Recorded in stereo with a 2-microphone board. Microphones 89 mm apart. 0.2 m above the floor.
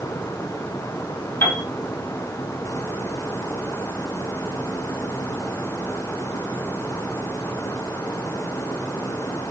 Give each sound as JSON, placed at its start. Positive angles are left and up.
{"t": 1.4, "sound": "a piano", "side_deg": 25, "distance_m": 2.0}